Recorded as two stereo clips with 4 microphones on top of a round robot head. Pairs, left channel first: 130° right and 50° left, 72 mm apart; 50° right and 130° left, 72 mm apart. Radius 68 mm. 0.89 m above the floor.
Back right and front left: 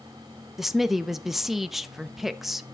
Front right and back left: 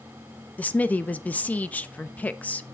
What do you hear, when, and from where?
0.6 s a woman speaking: 30° right, 0.7 m